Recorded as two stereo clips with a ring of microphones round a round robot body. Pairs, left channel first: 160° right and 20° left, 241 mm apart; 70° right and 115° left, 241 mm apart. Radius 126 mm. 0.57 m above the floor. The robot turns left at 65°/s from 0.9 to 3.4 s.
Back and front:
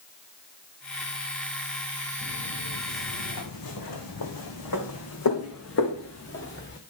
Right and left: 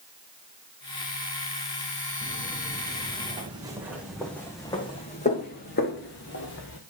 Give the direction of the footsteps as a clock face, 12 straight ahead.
4 o'clock.